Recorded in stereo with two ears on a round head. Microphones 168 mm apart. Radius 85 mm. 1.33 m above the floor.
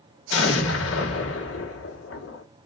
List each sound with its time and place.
0.3 s an explosion: 80° left, 2.5 m